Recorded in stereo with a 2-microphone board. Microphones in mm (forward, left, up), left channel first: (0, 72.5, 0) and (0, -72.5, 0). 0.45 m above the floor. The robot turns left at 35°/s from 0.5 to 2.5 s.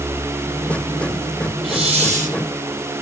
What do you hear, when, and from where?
1.6 s a hiss: 40° right (ahead or behind), 1.8 m; by 2.4 s 65° right (ahead or behind), 1.8 m